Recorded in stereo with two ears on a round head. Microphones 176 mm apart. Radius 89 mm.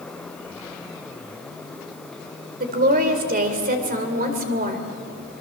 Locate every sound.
2.6 s a woman speaking: 45° right (ahead or behind), 2.5 m